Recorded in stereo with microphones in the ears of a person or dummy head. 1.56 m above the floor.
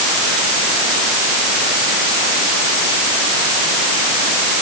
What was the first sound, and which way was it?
Only background noise.